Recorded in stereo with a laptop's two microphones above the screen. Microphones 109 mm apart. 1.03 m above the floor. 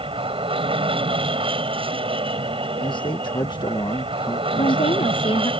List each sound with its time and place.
0.0 s an aircraft: 55° right (ahead or behind)
2.8 s a man speaking: 45° left (ahead or behind)
4.6 s a woman speaking: 55° left (ahead or behind)